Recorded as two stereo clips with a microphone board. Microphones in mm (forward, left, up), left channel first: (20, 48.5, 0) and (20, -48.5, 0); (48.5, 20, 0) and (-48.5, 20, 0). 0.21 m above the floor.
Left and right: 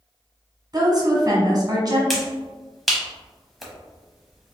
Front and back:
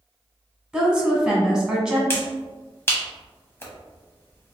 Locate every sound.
0.7 s a woman speaking: 105° right, 1.3 m
2.1 s a finger snap: straight ahead, 0.9 m